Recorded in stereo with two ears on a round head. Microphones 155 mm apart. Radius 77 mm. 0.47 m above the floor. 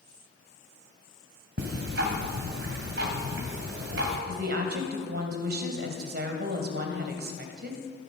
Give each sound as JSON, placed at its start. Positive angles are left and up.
{"t": 1.6, "sound": "ticking", "side_deg": -65, "distance_m": 2.5}
{"t": 4.3, "sound": "a woman speaking", "side_deg": -60, "distance_m": 2.0}